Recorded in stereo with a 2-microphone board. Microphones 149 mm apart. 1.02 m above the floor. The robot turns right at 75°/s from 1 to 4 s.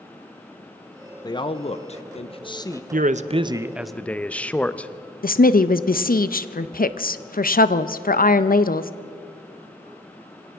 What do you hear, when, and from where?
1.2 s a man speaking: 35° left, 0.7 m; by 2.8 s 155° left, 0.7 m
2.9 s a man speaking: 70° right, 0.5 m; by 4.9 s 10° left, 0.5 m
5.2 s a woman speaking: 75° left (ahead or behind), 0.6 m